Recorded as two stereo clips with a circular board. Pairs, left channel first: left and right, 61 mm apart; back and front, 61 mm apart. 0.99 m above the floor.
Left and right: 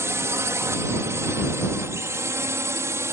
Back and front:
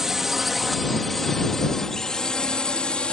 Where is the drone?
80° right; by 3.1 s 110° right.